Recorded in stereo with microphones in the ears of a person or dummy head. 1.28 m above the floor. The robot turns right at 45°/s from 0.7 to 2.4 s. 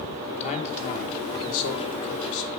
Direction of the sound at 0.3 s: 40° left.